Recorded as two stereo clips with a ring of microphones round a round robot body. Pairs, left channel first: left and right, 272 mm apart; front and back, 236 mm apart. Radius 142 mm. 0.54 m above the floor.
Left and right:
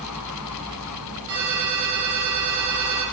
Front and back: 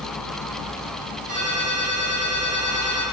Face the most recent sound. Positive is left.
turn(degrees=-95)